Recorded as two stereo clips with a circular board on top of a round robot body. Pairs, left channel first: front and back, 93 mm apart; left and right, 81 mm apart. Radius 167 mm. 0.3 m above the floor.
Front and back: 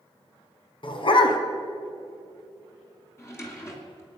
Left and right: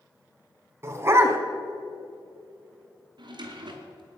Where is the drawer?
65° right, 2.5 m.